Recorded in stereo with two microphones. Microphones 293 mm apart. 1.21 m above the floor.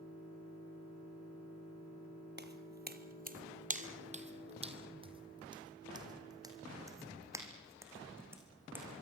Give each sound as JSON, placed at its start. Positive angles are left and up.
{"t": 2.4, "sound": "footsteps", "side_deg": -35, "distance_m": 1.5}